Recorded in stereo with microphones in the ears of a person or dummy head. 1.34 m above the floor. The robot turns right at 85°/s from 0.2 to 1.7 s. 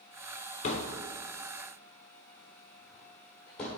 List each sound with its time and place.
0.6 s a thud: 50° left (ahead or behind), 1.3 m; by 3.8 s 10° left (ahead or behind), 1.3 m